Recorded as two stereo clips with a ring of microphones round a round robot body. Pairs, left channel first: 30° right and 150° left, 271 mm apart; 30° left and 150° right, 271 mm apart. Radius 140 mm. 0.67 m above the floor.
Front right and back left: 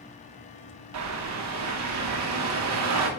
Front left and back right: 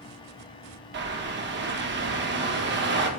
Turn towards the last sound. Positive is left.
turn(degrees=165)